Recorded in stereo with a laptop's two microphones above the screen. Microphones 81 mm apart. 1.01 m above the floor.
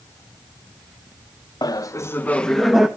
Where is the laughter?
50° left (ahead or behind), 0.8 m; by 2.9 s 5° right (ahead or behind), 1.2 m.